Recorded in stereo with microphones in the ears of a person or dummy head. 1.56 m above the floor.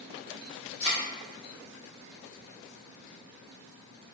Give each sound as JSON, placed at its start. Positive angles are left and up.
{"t": 0.8, "sound": "a thud", "side_deg": 10, "distance_m": 1.7}